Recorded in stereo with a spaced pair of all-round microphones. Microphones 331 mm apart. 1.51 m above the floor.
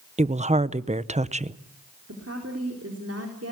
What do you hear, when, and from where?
0.2 s a woman speaking: 20° right (ahead or behind), 0.7 m
2.1 s a woman speaking: 45° right (ahead or behind), 4 m